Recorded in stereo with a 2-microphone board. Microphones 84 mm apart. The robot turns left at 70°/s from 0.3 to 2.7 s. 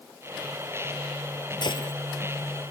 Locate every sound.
1.6 s a gunshot: 55° left (ahead or behind); by 1.9 s 75° left (ahead or behind)